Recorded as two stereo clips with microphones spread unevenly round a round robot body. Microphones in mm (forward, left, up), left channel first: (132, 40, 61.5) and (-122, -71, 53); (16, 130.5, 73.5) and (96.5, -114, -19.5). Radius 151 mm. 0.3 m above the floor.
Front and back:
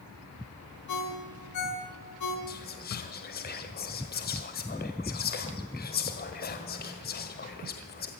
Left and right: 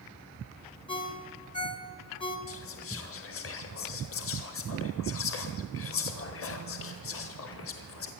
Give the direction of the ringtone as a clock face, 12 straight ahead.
11 o'clock.